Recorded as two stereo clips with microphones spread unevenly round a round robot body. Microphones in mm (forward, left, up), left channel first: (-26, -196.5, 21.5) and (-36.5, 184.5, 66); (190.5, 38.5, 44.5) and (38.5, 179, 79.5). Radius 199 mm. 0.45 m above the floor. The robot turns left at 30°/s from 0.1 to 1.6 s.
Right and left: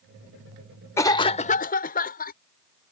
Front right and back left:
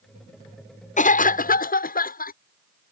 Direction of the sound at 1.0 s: 15° right.